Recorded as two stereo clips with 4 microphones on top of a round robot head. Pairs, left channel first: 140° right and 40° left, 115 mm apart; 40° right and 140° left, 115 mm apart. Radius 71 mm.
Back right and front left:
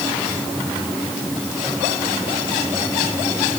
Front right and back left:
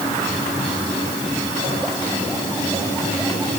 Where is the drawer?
No drawer in this recording.